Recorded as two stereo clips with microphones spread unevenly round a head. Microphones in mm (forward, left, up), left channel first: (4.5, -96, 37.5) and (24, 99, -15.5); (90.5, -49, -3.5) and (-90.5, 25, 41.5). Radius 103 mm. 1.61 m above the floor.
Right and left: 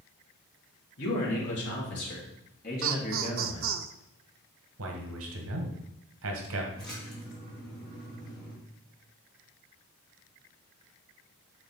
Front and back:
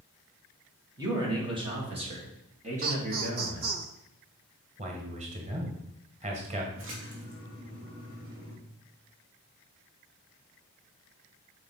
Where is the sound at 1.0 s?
130° right, 3.5 m; by 3.7 s 160° right, 3 m.